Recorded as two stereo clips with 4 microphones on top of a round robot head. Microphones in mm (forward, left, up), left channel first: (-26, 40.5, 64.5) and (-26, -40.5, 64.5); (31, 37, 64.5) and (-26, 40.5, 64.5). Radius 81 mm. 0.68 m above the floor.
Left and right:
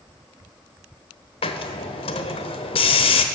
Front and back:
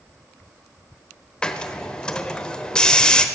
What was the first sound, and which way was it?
A hiss, 75° left.